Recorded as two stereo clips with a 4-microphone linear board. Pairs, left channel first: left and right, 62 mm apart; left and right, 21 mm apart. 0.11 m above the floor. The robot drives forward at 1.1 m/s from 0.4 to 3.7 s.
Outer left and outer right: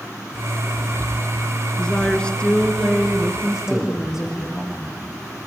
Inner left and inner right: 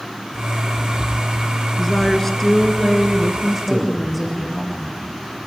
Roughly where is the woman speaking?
Centre.